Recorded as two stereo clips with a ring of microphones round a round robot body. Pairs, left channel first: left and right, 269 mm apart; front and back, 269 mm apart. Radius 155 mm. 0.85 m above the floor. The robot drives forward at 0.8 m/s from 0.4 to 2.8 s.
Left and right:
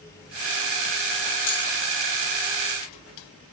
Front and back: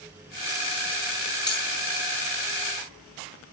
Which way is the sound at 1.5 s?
75° left.